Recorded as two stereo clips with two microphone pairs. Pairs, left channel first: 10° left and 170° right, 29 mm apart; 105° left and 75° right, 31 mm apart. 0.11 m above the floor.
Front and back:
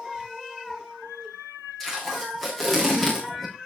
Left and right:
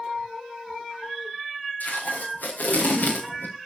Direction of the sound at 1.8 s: 90° left.